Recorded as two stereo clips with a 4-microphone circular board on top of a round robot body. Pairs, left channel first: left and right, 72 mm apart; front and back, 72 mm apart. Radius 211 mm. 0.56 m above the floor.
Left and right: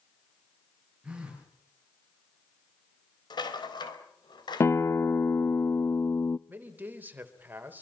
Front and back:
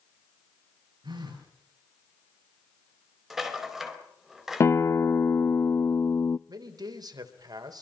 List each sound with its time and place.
1.0 s a phone buzzing: 165° right, 7.5 m
3.3 s a rattle: 95° left, 4.5 m
4.6 s a guitar: 45° left, 0.7 m
6.5 s a man speaking: 155° right, 3.5 m